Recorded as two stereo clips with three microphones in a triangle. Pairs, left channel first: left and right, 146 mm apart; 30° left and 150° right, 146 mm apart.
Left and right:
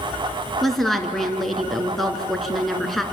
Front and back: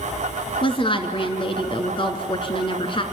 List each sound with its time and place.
0.6 s a woman speaking: straight ahead, 2 m